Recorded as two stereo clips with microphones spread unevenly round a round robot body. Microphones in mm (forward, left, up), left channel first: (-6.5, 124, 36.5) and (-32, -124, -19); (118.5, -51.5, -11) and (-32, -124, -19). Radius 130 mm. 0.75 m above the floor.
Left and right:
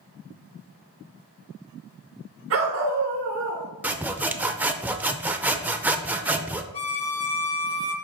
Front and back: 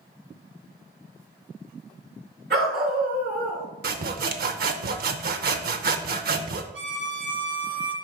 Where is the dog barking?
135° right, 2.5 m; by 3.7 s 120° right, 3.5 m.